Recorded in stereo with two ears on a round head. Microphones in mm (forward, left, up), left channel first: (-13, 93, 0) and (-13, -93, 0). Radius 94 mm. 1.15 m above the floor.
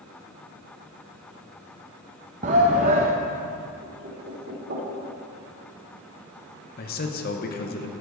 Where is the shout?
35° right (ahead or behind), 0.6 m.